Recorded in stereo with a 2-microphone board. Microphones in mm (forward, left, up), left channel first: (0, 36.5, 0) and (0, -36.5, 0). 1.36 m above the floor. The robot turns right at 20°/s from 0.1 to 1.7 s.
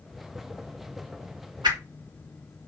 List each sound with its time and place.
1.6 s a whoosh: 90° right, 1.5 m